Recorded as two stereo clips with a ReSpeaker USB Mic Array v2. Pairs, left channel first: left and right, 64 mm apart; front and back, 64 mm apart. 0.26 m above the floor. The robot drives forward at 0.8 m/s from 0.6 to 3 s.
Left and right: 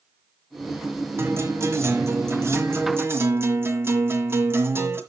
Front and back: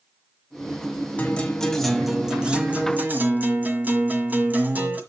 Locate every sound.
1.2 s a guitar: 60° right, 1.6 m; by 5.0 s 130° right, 1.7 m